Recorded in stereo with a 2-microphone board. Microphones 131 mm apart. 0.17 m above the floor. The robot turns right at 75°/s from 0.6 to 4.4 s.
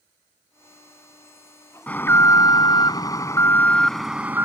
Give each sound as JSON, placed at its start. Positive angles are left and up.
{"t": 1.9, "sound": "an alarm", "azimuth_deg": 20}